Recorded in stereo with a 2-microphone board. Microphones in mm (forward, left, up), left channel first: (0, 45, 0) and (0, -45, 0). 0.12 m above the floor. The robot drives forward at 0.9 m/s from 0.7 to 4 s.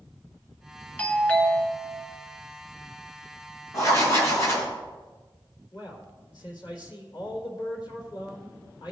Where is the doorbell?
15° left (ahead or behind), 1.5 m.